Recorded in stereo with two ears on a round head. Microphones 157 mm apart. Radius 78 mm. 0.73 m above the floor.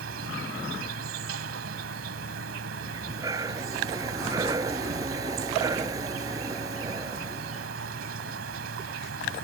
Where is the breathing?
20° right (ahead or behind).